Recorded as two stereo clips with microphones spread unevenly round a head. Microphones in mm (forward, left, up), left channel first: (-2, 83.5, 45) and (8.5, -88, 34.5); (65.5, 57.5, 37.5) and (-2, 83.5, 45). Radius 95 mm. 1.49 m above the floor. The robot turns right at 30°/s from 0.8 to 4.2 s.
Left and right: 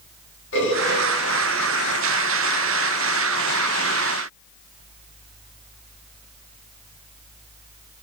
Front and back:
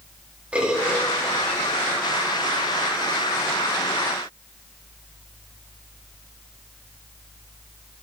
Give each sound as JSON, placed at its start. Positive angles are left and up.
{"t": 0.5, "sound": "a bird", "azimuth_deg": 85, "distance_m": 3.5}